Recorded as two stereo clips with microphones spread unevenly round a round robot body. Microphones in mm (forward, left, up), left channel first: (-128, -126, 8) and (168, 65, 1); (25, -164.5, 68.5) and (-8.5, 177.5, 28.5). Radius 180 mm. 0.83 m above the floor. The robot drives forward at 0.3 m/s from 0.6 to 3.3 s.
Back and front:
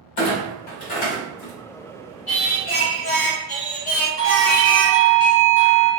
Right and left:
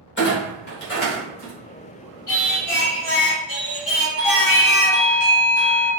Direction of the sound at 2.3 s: 125° right.